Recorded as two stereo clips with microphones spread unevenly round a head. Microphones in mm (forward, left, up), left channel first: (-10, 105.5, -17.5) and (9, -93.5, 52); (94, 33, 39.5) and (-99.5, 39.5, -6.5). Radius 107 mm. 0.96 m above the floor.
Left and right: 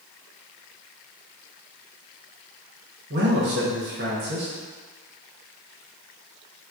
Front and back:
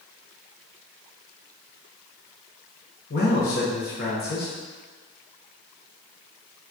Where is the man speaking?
40° right, 0.9 m.